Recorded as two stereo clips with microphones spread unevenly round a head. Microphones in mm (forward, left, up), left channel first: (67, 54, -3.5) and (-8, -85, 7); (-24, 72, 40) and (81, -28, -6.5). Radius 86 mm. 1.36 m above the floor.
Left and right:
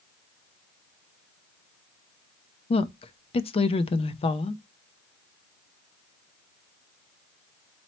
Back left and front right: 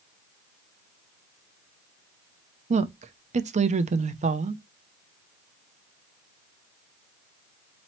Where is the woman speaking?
5° left, 0.5 m.